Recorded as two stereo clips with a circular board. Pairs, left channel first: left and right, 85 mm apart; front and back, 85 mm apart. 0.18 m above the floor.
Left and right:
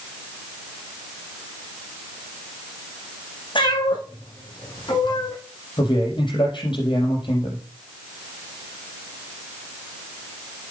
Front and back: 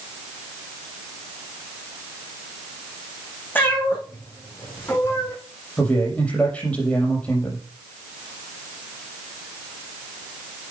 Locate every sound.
3.5 s a cat meowing: 70° left, 5 m; by 5.3 s 60° left, 3 m
5.8 s a man speaking: 75° left, 5.5 m